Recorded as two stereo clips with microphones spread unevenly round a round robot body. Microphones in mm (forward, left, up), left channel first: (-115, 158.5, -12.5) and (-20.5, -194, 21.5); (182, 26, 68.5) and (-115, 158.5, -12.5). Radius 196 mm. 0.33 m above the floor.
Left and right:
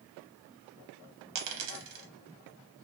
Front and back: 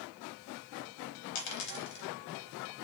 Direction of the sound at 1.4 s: 50° right.